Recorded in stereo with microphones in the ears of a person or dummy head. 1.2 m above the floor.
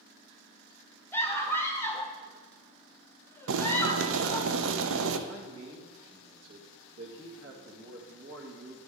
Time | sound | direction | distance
1.1 | a scream | 5° left (ahead or behind) | 0.6 m
3.5 | boiling | 65° right (ahead or behind) | 0.7 m
5.3 | a man speaking | 70° right (ahead or behind) | 1.8 m